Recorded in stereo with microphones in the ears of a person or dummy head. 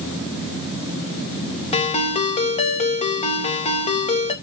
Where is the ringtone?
30° left (ahead or behind), 1.1 m.